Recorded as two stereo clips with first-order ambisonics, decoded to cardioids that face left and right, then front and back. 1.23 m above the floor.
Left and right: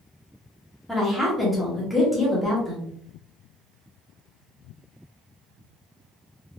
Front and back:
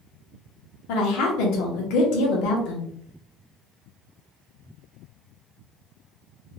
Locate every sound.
0.9 s a woman speaking: straight ahead, 1.0 m